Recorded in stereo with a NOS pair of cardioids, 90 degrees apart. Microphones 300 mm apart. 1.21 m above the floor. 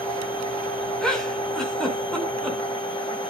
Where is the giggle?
Straight ahead, 5 m.